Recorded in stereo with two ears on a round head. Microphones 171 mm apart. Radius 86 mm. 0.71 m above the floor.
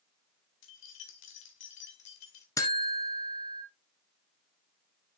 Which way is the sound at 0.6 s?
75° left (ahead or behind).